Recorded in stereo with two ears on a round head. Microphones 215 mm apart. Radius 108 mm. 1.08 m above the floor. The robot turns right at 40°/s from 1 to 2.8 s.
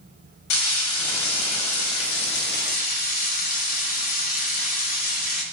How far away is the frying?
About 0.9 m.